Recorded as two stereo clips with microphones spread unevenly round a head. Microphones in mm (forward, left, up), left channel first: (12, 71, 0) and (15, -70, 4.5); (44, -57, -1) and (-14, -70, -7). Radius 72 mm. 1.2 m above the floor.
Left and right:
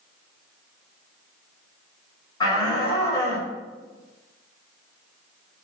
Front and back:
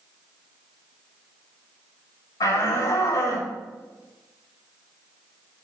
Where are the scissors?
I don't hear scissors.